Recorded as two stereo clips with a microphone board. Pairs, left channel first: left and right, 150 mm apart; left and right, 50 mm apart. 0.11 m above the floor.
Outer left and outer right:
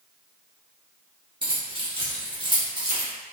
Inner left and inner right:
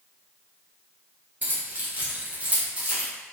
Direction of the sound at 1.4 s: 35° right (ahead or behind).